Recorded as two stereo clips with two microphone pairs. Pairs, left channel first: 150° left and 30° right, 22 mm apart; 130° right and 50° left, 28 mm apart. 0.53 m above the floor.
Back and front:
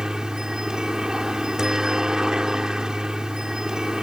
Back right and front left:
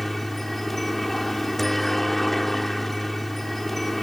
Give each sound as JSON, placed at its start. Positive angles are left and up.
{"t": 0.0, "sound": "a helicopter", "azimuth_deg": -50}